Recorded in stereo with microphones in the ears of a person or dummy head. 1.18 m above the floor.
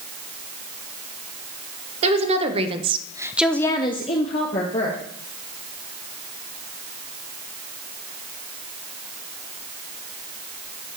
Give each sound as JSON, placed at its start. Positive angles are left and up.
{"t": 2.0, "sound": "a woman speaking", "side_deg": -40, "distance_m": 1.6}